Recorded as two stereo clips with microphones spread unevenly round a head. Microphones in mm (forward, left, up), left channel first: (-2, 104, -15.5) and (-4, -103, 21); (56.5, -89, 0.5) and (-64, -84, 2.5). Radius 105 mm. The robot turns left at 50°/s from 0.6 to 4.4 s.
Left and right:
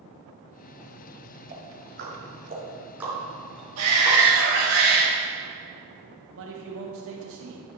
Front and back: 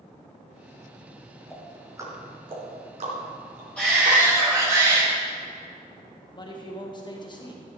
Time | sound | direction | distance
1.5 | ticking | 95° right | 3 m
3.8 | a shout | 85° right | 1.8 m
6.3 | a man speaking | 55° right | 1.0 m